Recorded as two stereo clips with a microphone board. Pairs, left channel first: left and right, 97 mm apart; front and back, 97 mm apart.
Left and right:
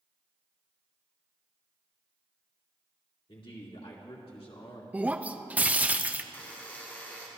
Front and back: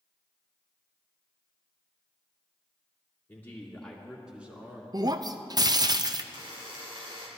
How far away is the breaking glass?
About 0.5 m.